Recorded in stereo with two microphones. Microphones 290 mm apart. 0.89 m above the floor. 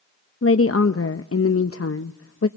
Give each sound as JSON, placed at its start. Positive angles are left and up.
{"t": 0.4, "sound": "a woman speaking", "side_deg": 55, "distance_m": 0.6}